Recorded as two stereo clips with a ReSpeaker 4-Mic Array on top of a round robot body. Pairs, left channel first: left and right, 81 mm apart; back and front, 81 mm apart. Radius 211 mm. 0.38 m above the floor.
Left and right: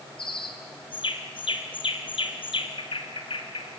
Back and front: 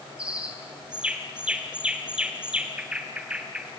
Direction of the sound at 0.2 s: 80° left.